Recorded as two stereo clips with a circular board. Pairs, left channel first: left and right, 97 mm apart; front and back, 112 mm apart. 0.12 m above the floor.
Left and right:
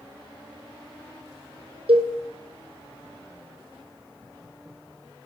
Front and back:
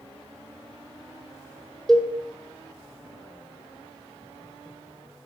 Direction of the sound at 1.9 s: 85° right.